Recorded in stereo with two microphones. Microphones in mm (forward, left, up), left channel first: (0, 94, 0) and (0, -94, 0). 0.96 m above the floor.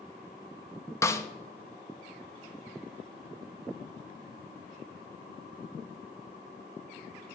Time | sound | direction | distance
1.0 | a snare drum | 15° left (ahead or behind) | 0.6 m